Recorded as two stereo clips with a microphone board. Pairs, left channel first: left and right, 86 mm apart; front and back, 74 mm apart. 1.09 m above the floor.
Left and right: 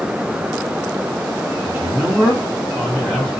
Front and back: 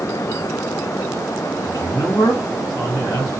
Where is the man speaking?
35° right, 1.1 m; by 3.3 s 15° left, 1.2 m.